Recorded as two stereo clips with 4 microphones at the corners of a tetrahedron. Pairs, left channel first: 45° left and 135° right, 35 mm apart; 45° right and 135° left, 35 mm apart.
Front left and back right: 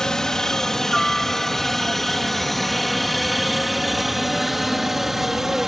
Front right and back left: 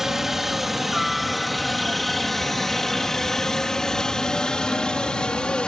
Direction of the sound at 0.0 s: 80° left.